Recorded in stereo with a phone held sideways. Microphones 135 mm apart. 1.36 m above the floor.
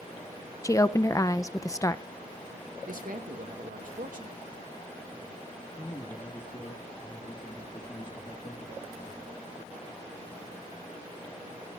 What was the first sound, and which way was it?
A woman speaking, 25° left (ahead or behind).